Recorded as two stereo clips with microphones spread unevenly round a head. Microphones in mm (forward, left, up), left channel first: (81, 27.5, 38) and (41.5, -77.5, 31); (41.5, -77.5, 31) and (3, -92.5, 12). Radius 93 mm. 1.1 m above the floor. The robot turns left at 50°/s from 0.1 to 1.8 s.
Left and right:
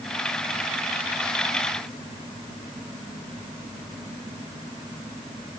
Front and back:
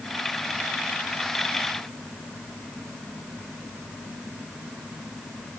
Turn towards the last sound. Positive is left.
No sound to turn to.